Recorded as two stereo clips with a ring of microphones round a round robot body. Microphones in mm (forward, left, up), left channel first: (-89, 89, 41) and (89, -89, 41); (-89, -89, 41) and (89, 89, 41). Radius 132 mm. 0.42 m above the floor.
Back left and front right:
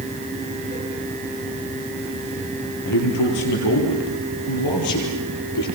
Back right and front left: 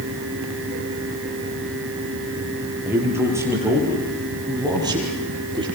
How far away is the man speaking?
About 9.5 m.